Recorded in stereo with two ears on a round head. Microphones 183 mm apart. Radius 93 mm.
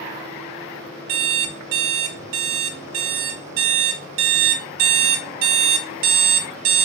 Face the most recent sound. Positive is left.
turn(degrees=-70)  # may be behind; listen again after turning